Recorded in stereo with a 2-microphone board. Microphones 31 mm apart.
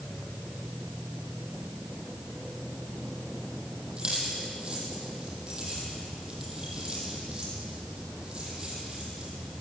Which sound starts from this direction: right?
Keys jangling, at 4.0 s.